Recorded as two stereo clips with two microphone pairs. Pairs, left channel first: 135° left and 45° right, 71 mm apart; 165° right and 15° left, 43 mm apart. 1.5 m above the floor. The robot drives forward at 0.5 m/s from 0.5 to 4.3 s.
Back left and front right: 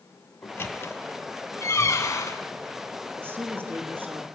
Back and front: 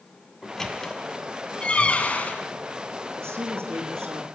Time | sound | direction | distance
0.4 | a squeak | 120° left | 1.5 m
3.2 | a woman speaking | 15° left | 3 m